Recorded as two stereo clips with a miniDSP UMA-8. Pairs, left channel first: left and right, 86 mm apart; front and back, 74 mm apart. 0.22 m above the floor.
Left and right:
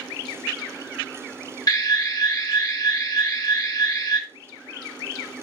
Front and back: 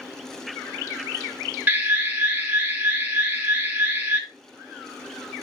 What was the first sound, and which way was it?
An alarm, 120° left.